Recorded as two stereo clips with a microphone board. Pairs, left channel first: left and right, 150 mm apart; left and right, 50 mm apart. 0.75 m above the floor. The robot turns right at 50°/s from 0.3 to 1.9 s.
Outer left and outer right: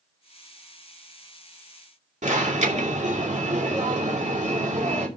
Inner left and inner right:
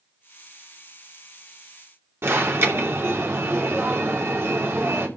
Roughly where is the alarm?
Right.